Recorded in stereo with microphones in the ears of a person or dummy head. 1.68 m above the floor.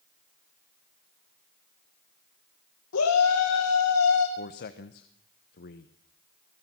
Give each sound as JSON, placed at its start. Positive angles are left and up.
{"t": 2.9, "sound": "a shout", "side_deg": 85, "distance_m": 2.5}
{"t": 4.4, "sound": "a man speaking", "side_deg": 55, "distance_m": 1.2}